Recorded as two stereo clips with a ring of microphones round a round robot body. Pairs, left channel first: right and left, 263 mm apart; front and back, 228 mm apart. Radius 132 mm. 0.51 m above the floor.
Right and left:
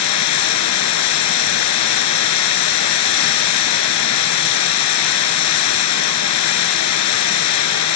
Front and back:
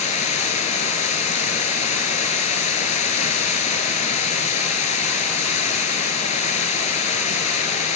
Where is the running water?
65° right, 1.0 m.